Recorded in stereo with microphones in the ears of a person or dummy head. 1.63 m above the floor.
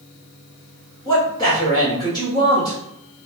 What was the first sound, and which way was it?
A man speaking, 25° left (ahead or behind).